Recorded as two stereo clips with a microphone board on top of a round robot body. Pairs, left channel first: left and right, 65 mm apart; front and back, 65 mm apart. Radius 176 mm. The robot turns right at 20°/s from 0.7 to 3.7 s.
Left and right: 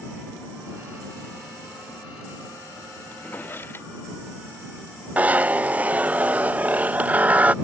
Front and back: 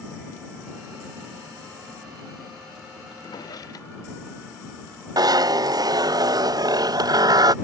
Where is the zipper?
160° right.